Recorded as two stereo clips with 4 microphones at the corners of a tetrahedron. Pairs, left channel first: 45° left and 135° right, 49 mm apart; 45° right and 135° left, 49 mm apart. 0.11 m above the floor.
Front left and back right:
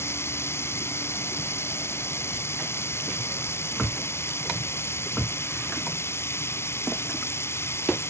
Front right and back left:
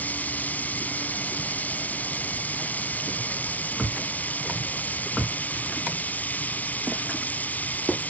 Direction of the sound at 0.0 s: 15° left.